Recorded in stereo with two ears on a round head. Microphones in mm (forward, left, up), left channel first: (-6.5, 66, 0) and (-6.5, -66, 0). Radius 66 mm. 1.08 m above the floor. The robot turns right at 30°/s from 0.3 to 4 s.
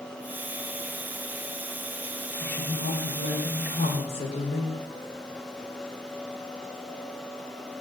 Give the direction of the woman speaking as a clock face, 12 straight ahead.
9 o'clock.